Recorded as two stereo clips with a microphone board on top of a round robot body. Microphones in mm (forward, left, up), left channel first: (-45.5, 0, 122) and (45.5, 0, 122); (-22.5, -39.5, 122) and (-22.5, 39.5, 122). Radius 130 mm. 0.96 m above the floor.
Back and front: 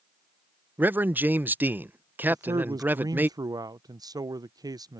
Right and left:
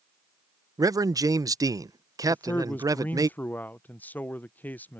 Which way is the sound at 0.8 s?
65° left.